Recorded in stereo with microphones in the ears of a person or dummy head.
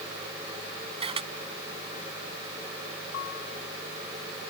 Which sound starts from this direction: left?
A piano, at 3.1 s.